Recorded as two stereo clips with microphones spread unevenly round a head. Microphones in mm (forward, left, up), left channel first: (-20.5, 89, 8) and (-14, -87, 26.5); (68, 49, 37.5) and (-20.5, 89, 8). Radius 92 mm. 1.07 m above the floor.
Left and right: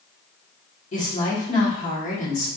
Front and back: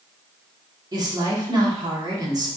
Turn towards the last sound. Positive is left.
turn(degrees=130)